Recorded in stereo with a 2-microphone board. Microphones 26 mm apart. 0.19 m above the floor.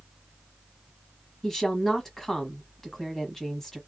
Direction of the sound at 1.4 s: 15° left (ahead or behind).